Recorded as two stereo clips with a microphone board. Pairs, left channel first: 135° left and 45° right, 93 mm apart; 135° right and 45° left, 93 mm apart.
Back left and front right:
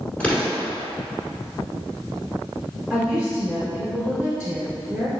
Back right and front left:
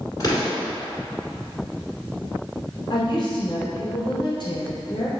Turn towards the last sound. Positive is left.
turn(degrees=-130)